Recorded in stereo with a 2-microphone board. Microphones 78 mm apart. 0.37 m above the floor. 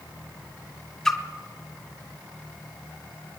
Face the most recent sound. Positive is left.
turn(degrees=5)  # may be behind; listen again after turning